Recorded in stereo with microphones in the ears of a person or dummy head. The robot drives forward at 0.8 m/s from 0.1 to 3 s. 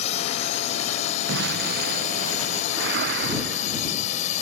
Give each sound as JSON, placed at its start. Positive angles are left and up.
{"t": 0.0, "sound": "a drone", "side_deg": 40}
{"t": 1.3, "sound": "an explosion", "side_deg": -65}
{"t": 2.7, "sound": "a whoosh", "side_deg": -65}